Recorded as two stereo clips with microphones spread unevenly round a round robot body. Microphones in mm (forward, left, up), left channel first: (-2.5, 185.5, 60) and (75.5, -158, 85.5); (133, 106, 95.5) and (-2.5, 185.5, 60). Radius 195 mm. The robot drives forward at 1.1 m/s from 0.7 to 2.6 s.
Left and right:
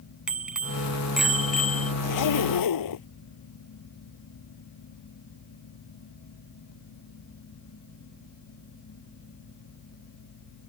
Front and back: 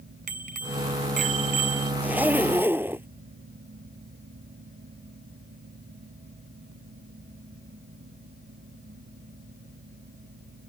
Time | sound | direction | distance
0.3 | a bicycle bell | 165° right | ?
2.0 | a zipper | 70° left | ?